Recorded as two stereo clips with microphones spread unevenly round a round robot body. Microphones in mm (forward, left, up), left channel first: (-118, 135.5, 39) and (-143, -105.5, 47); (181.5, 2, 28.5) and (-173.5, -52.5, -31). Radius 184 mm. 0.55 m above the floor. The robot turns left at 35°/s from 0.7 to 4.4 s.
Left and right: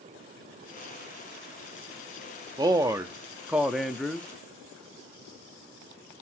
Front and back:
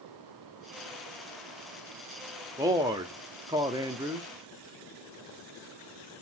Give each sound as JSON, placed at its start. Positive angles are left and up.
{"t": 2.6, "sound": "a man speaking", "azimuth_deg": -145, "distance_m": 0.6}